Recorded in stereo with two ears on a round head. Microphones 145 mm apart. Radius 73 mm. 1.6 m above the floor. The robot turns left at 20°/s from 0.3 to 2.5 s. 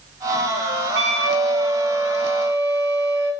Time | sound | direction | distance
0.9 | a flute | 80° right | 2.5 m